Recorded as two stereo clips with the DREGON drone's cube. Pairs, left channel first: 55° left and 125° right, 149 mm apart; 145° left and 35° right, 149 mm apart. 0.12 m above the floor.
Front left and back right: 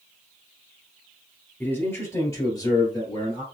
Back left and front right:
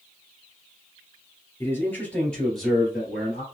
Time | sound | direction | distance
1.6 | a man speaking | 110° left | 1.7 m